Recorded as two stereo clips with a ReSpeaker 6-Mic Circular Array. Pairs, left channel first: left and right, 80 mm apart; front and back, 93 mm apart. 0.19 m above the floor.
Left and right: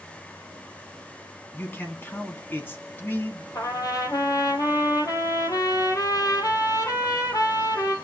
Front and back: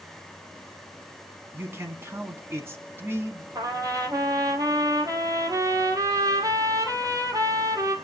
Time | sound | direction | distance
1.5 | a man speaking | 135° left | 1.9 m
3.5 | a trumpet | 130° left | 2 m